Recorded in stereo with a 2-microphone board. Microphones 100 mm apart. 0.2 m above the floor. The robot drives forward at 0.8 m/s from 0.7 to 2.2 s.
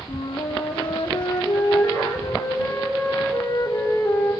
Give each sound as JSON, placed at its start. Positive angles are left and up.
{"t": 0.1, "sound": "a flute", "side_deg": 50, "distance_m": 3.0}